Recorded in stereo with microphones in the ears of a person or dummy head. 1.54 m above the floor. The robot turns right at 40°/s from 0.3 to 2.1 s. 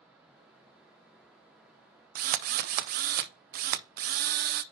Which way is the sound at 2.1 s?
55° right (ahead or behind).